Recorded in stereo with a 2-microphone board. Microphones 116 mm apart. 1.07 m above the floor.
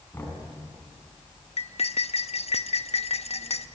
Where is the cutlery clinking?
65° left (ahead or behind), 0.6 m.